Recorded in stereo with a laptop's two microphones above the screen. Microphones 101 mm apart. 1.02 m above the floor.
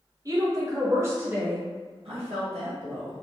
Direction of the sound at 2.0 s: 75° right (ahead or behind).